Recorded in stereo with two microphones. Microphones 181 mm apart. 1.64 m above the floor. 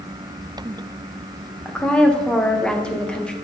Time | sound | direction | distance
1.6 | a woman speaking | 5° left (ahead or behind) | 1.2 m